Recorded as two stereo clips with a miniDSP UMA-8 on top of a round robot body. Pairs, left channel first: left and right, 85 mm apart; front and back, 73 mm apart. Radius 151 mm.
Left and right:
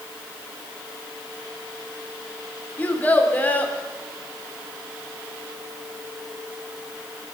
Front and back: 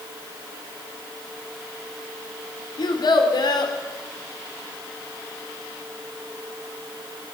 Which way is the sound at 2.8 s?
20° left.